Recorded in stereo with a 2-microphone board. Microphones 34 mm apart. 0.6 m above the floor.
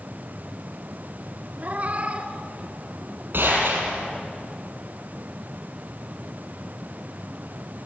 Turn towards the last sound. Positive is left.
turn(degrees=-75)  # may be behind; listen again after turning